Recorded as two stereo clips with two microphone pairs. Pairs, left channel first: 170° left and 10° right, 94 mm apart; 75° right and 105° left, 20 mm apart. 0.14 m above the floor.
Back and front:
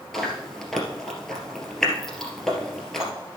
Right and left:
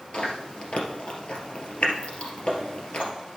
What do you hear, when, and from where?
0.1 s chewing: 100° right, 2.5 m